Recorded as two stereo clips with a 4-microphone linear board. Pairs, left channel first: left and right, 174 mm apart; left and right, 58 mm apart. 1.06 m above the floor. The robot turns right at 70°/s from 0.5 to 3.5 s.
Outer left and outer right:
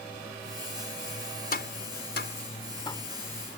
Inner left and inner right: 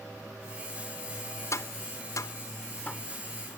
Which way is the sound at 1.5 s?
60° left (ahead or behind).